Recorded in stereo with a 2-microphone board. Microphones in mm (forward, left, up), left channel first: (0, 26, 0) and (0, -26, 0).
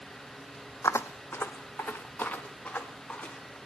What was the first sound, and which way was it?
Footsteps, 60° left (ahead or behind).